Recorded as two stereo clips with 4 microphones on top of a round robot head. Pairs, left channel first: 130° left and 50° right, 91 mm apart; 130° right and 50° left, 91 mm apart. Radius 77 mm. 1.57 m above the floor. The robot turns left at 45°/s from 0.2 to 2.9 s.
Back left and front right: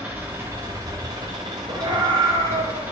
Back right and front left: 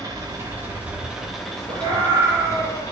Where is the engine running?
15° left, 1.1 m; by 2.9 s 110° right, 1.1 m.